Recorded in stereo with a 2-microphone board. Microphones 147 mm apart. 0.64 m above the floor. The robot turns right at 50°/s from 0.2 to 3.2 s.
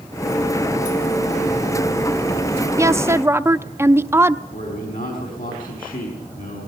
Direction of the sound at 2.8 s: 20° right (ahead or behind).